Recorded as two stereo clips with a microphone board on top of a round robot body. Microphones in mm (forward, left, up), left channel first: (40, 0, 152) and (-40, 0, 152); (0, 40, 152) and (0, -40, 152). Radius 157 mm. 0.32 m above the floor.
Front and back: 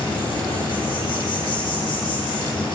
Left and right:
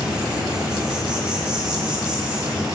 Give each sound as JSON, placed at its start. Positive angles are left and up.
{"t": 0.0, "sound": "an insect", "azimuth_deg": -10, "distance_m": 7.0}